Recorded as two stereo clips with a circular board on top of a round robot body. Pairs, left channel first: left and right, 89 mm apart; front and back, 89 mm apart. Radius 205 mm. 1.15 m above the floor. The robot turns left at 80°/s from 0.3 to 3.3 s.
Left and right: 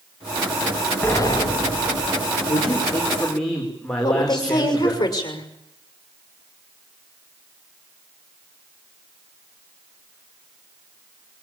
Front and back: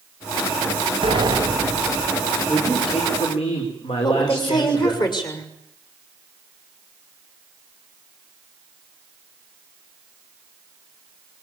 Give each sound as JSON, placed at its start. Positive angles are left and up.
{"t": 1.0, "sound": "a sliding door", "azimuth_deg": 160, "distance_m": 1.9}
{"t": 2.5, "sound": "a man speaking", "azimuth_deg": 70, "distance_m": 4.5}
{"t": 4.0, "sound": "a woman speaking", "azimuth_deg": 40, "distance_m": 6.0}